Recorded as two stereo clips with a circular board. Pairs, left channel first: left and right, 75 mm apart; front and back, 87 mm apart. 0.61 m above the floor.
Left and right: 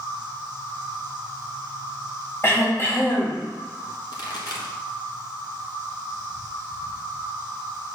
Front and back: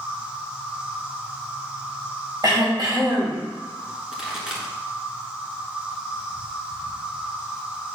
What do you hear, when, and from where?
0.0 s an insect: 110° right, 2.5 m
2.4 s throat clearing: 145° left, 2.5 m
4.1 s a pop: 95° left, 1.7 m